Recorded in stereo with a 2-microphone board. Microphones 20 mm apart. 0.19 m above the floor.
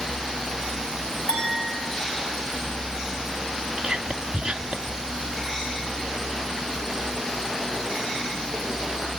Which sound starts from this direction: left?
A clink, at 1.3 s.